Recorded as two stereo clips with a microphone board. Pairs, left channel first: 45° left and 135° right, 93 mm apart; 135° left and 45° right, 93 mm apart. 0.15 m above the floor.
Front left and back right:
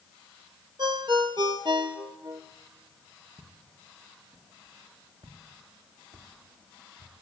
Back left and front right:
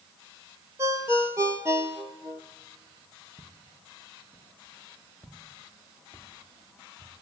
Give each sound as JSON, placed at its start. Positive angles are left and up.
{"t": 0.8, "sound": "a ringtone", "azimuth_deg": -105, "distance_m": 1.4}
{"t": 3.4, "sound": "footsteps", "azimuth_deg": -95, "distance_m": 3.5}